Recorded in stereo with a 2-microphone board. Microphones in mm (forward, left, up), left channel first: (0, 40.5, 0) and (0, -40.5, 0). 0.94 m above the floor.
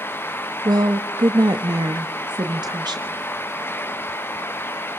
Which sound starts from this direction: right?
A woman speaking, at 0.7 s.